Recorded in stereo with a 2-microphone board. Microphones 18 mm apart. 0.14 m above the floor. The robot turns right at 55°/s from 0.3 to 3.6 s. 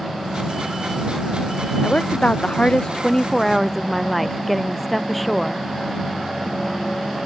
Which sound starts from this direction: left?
A woman speaking, at 1.8 s.